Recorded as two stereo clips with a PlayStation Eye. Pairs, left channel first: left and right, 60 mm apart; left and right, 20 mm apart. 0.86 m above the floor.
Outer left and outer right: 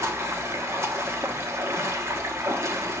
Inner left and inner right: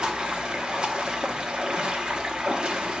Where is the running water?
50° right (ahead or behind), 1.2 m.